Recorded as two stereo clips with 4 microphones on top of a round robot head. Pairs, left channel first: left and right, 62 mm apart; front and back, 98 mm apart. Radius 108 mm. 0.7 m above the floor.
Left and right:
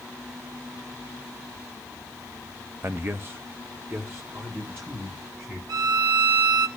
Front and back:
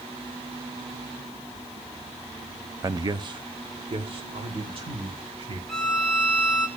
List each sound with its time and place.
2.8 s a man speaking: 130° right, 0.6 m; by 5.6 s 150° right, 4 m
5.7 s a violin: 85° right, 0.7 m